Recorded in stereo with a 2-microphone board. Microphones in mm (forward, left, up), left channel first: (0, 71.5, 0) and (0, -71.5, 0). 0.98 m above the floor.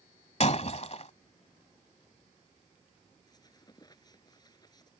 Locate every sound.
0.4 s breaking glass: 50° left (ahead or behind)
3.3 s a squeak: 30° left (ahead or behind)